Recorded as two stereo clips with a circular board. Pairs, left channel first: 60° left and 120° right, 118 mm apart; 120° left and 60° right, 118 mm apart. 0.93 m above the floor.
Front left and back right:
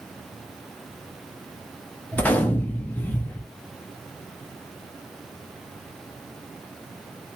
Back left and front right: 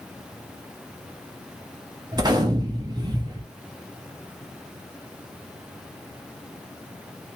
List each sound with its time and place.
2.1 s a gunshot: 15° right, 0.9 m